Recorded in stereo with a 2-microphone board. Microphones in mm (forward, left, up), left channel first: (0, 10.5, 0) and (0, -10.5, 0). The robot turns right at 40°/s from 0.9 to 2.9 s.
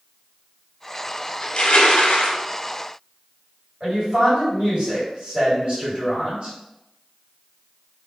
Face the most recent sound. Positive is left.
turn(degrees=-40)  # may be behind; listen again after turning